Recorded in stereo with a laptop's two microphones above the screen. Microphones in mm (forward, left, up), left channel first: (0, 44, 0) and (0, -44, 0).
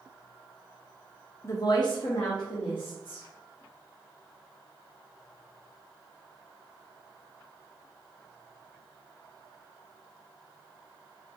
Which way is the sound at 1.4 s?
30° left (ahead or behind).